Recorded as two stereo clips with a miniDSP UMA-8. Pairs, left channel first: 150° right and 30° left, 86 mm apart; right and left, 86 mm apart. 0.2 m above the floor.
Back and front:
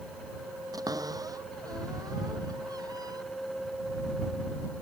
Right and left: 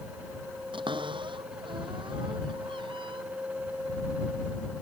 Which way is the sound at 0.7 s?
75° left.